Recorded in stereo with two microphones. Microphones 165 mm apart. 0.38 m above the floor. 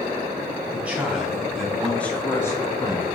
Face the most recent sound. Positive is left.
turn(degrees=25)  # may be behind; listen again after turning